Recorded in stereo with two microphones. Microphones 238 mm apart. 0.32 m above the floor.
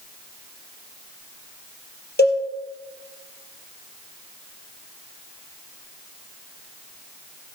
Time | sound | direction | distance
2.2 | a cowbell | 45° left (ahead or behind) | 2.5 m